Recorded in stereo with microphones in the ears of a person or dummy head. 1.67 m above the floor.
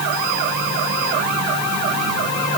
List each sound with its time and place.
Only background noise.